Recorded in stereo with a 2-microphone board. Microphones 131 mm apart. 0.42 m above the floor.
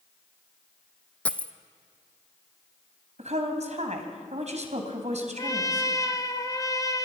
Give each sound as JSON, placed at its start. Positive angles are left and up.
{"t": 1.2, "sound": "a dropped coin", "side_deg": 10, "distance_m": 0.9}
{"t": 3.2, "sound": "a woman speaking", "side_deg": -60, "distance_m": 3.0}
{"t": 5.4, "sound": "a trumpet", "side_deg": 30, "distance_m": 1.3}